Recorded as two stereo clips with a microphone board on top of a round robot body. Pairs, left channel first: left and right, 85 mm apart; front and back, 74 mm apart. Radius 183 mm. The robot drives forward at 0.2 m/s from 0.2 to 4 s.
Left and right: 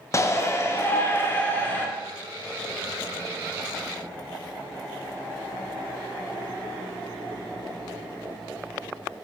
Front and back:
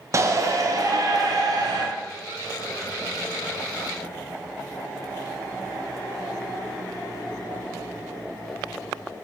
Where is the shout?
140° left, 0.6 m; by 1.9 s 155° left, 0.8 m.